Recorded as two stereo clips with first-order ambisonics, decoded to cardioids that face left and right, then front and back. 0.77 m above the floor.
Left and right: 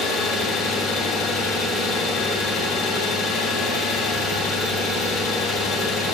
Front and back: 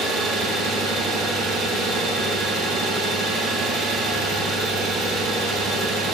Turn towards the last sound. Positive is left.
turn(degrees=140)